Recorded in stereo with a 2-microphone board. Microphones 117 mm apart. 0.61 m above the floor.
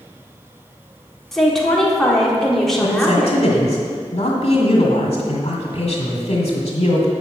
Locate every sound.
1.3 s a woman speaking: 5° left (ahead or behind), 1.5 m
2.8 s a man speaking: 65° left (ahead or behind), 1.9 m